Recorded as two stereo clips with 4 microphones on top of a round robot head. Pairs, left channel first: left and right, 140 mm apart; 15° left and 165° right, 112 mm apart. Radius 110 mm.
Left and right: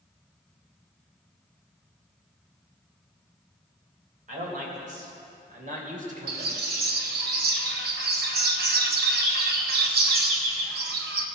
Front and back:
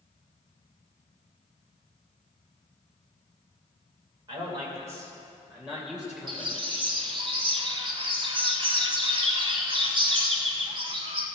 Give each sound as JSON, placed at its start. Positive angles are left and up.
{"t": 4.3, "sound": "a man speaking", "azimuth_deg": -115, "distance_m": 3.0}
{"t": 6.3, "sound": "a bird", "azimuth_deg": -105, "distance_m": 0.8}